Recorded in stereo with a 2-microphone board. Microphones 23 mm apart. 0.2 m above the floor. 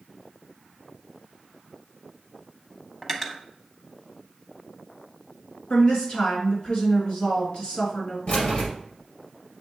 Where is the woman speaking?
55° left (ahead or behind), 1.6 m.